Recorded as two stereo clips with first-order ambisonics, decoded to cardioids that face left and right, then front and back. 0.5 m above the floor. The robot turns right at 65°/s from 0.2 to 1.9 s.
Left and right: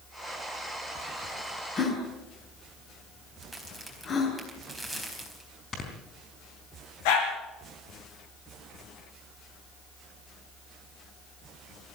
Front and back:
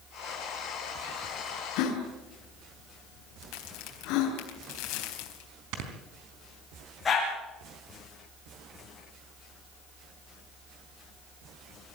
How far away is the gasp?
About 6 m.